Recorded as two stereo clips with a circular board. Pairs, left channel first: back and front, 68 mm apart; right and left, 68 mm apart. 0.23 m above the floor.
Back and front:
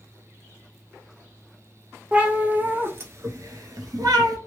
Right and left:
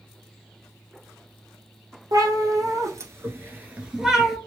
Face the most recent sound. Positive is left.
turn(degrees=0)